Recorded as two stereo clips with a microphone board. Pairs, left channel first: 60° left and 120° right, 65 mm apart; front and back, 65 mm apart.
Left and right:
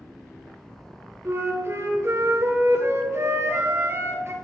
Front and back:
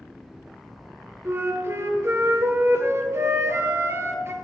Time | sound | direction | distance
1.2 | a flute | 150° right | 1.0 m